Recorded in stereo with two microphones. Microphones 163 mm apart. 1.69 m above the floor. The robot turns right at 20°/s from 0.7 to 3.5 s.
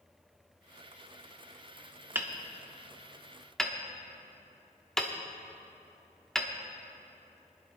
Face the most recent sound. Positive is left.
turn(degrees=5)  # may be behind; listen again after turning